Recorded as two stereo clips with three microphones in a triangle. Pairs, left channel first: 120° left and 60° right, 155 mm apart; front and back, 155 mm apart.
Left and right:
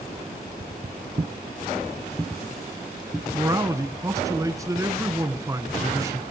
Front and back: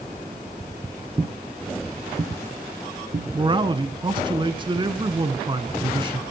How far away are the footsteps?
About 0.9 m.